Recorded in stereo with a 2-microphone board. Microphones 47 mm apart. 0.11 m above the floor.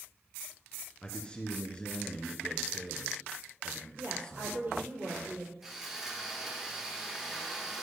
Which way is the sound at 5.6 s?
10° right (ahead or behind).